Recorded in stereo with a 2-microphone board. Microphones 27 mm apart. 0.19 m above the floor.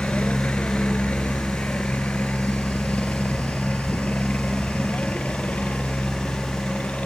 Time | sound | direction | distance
0.0 | a helicopter | 60° left (ahead or behind) | ?